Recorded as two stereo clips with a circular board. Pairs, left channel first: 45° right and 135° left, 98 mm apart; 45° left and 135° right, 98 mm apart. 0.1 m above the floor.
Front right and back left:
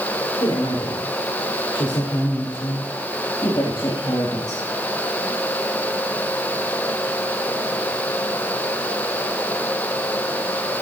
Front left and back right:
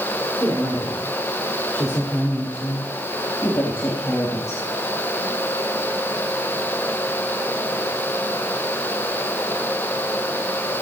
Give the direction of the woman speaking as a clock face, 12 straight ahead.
12 o'clock.